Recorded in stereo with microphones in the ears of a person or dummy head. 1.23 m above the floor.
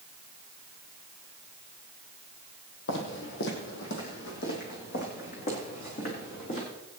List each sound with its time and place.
2.9 s footsteps: 60° left (ahead or behind), 2.5 m; by 6.7 s 45° left (ahead or behind), 5.5 m